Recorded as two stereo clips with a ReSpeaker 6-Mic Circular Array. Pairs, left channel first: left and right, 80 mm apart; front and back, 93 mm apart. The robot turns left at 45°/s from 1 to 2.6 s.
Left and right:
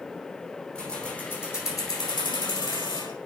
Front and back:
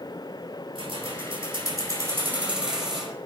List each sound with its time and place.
0.8 s keys jangling: 165° left, 5 m; by 3.1 s 95° left, 5 m